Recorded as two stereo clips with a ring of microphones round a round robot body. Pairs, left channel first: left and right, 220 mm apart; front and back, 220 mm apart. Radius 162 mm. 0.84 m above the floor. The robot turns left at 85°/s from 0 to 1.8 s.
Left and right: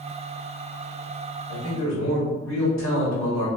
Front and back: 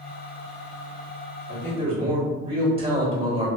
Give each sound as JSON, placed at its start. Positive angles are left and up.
{"t": 1.5, "sound": "a man speaking", "azimuth_deg": 145, "distance_m": 1.4}